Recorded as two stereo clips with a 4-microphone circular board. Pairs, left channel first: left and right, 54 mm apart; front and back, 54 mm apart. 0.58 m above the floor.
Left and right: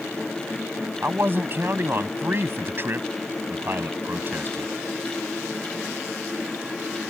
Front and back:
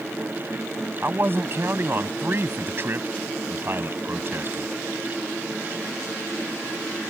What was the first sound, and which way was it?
A man speaking, 140° right.